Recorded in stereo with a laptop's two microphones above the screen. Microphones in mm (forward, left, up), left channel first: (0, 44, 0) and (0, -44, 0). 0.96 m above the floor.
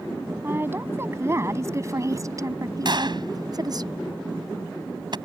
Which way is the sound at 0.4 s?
25° right (ahead or behind).